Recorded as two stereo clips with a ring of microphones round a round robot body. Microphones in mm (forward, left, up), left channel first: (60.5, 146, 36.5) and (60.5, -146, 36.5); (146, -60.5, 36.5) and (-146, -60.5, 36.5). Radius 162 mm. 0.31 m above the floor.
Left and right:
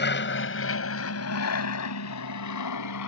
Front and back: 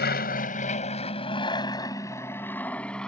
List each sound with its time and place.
0.0 s an aircraft: 50° left; by 3.1 s 90° left